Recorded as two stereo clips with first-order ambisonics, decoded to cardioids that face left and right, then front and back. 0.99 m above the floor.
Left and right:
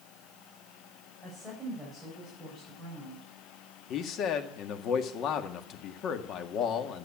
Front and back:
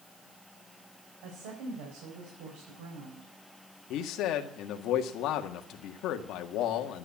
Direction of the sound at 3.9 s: 40° left.